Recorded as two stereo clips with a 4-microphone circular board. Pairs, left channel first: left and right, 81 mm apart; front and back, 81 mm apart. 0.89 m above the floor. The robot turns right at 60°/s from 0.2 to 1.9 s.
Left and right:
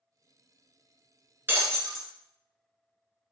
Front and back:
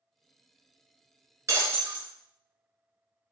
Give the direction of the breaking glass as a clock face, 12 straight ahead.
5 o'clock.